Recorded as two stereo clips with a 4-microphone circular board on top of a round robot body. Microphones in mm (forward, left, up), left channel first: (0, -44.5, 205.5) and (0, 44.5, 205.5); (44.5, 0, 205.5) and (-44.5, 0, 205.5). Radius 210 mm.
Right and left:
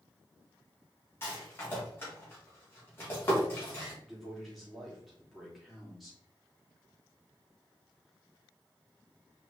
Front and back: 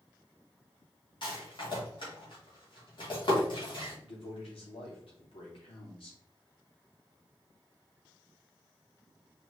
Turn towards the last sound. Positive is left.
turn(degrees=0)